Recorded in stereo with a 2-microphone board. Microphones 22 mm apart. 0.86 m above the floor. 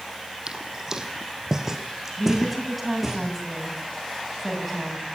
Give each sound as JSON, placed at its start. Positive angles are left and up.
{"t": 0.5, "sound": "footsteps", "side_deg": -30, "distance_m": 2.0}
{"t": 2.2, "sound": "a woman speaking", "side_deg": -5, "distance_m": 7.0}